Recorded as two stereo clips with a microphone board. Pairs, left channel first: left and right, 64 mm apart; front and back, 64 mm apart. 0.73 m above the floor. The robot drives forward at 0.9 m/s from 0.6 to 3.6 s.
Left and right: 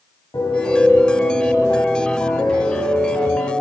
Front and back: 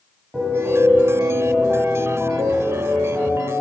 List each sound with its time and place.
0.3 s a piano: 95° left, 3.5 m; by 3.5 s 130° left, 4.5 m